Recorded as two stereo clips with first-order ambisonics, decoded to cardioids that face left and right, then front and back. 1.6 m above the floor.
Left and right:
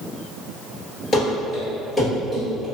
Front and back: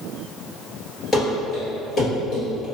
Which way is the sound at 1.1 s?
55° left.